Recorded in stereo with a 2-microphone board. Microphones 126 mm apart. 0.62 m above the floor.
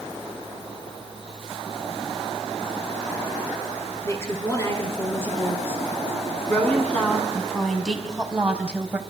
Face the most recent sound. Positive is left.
turn(degrees=-15)  # may be behind; listen again after turning